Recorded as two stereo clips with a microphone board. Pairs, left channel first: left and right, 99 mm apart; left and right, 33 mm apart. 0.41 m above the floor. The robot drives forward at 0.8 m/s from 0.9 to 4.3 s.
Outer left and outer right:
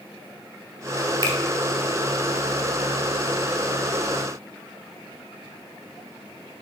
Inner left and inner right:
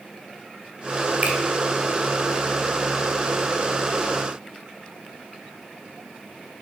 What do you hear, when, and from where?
1.2 s a finger snap: 45° right (ahead or behind), 1.8 m; by 1.4 s 50° right (ahead or behind), 1.8 m